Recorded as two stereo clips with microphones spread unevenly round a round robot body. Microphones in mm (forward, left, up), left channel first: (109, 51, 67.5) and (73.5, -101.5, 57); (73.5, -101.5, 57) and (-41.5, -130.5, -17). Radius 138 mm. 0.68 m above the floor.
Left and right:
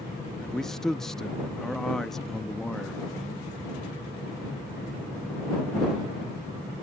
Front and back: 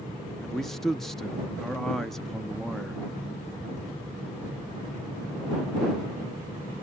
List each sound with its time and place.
0.4 s a man speaking: 165° left